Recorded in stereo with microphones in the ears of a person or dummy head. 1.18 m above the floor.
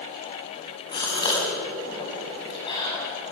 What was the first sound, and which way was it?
A gasp, 25° left (ahead or behind).